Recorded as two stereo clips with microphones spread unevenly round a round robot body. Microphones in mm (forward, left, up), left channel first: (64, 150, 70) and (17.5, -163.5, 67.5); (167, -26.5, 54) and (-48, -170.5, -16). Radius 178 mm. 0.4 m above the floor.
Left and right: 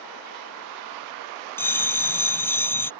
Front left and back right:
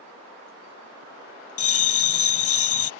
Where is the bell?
Straight ahead.